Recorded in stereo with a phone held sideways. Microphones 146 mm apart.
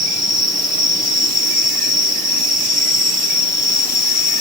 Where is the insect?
30° right (ahead or behind).